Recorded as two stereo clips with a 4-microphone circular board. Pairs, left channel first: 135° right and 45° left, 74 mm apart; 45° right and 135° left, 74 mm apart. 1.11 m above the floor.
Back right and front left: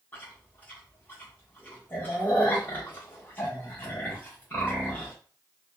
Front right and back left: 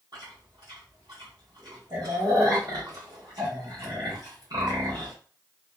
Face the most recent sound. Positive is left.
turn(degrees=160)